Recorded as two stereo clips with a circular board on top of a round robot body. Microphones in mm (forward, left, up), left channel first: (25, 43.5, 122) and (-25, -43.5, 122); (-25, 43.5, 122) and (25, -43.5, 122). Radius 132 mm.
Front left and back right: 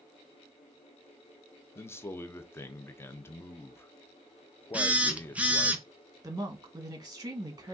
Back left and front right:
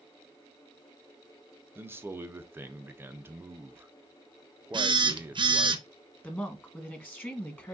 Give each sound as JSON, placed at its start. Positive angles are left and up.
{"t": 1.8, "sound": "a man speaking", "azimuth_deg": 0, "distance_m": 0.7}
{"t": 4.7, "sound": "a phone buzzing", "azimuth_deg": -45, "distance_m": 0.8}
{"t": 6.2, "sound": "a woman speaking", "azimuth_deg": -170, "distance_m": 1.3}